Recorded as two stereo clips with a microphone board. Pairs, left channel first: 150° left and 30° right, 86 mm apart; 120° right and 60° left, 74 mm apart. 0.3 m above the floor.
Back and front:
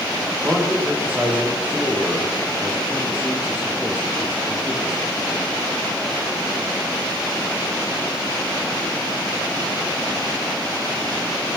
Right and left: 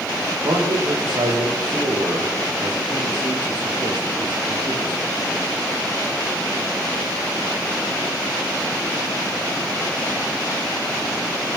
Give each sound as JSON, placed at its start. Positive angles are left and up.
{"t": 0.4, "sound": "a man speaking", "azimuth_deg": 45, "distance_m": 8.5}